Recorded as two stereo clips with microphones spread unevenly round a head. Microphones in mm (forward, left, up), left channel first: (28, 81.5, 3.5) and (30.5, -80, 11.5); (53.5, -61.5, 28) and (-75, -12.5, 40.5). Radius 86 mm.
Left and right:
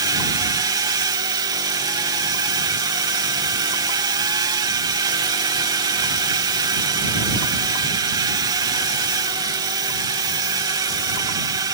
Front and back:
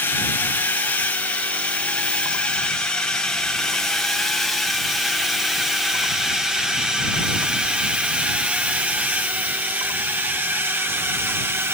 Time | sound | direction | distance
0.0 | a drone | 60° right | ?